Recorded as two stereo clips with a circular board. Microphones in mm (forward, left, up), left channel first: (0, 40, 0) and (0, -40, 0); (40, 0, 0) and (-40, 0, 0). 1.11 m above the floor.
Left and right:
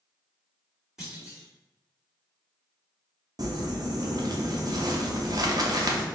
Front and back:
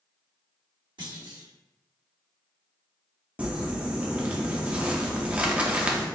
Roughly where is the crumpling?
Right.